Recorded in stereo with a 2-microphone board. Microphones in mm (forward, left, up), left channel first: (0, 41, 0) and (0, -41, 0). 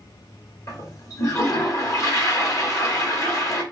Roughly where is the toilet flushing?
Left.